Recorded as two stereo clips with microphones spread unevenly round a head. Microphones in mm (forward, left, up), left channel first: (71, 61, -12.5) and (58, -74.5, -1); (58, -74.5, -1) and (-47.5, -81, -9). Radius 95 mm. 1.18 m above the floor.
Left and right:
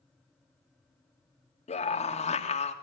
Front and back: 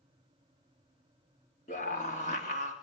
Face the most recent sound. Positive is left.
turn(degrees=50)